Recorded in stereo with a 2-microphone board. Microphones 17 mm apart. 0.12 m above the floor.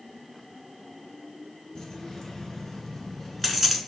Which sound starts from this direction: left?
Keys jangling, at 1.8 s.